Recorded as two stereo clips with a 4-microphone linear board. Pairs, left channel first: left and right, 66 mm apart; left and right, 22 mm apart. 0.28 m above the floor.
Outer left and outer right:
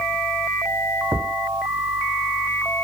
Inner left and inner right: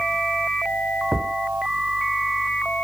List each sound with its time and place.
1.1 s a thud: 55° right (ahead or behind)